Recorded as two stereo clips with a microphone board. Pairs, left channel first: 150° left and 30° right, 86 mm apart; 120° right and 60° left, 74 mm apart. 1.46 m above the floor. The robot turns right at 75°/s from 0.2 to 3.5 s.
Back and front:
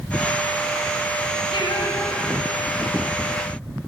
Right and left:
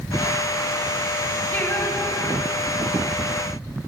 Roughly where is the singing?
Behind.